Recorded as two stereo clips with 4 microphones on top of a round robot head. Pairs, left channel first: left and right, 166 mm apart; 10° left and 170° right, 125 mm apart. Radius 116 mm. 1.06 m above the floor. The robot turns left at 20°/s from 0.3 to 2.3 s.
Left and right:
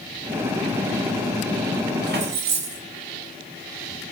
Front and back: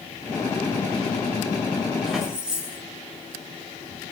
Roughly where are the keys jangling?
Right.